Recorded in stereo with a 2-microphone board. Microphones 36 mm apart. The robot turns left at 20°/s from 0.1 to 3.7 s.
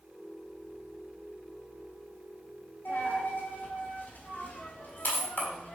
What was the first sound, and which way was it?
A dropped coin, 70° left (ahead or behind).